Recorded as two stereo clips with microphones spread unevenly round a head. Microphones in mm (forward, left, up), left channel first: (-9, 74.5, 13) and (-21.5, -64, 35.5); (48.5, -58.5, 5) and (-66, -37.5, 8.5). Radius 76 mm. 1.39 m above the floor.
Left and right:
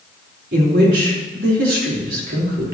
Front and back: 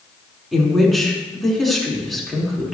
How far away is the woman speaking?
About 4.5 m.